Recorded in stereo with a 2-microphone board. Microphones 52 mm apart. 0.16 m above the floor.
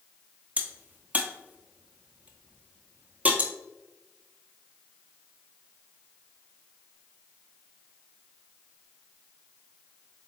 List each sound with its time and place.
0.6 s a crack: 30° right (ahead or behind), 0.6 m